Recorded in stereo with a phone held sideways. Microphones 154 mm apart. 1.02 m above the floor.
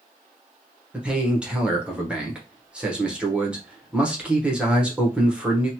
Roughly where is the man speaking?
Centre.